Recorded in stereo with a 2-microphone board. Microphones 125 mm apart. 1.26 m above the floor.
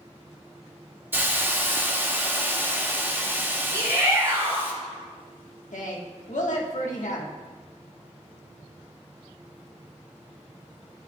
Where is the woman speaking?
85° left, 1.3 m.